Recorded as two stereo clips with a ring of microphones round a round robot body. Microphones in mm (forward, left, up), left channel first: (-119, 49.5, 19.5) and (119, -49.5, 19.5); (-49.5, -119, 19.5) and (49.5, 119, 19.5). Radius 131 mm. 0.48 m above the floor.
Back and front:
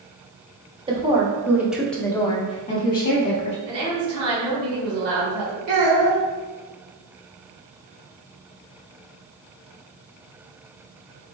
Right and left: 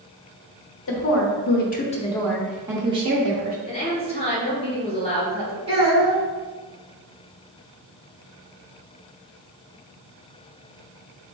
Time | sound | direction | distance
0.9 | a woman speaking | 90° right | 1.0 m
3.6 | a woman speaking | 45° right | 1.9 m
5.7 | a child speaking | straight ahead | 1.6 m